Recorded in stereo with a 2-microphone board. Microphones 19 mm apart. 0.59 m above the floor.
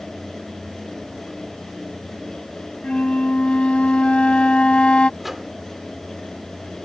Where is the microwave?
10° right (ahead or behind).